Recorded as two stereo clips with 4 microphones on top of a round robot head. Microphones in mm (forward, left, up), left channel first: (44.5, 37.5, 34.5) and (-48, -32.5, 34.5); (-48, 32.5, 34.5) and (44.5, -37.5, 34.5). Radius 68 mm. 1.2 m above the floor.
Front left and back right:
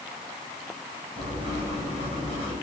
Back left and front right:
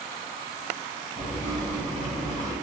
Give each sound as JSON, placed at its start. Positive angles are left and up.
{"t": 1.2, "sound": "writing", "azimuth_deg": 175, "distance_m": 5.5}